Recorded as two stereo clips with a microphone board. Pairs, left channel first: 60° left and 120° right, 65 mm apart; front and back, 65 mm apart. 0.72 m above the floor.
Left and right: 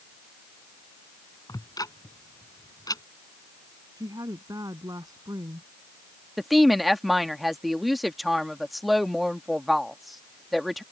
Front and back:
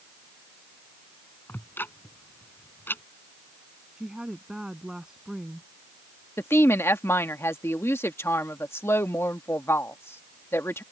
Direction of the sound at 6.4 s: 30° right.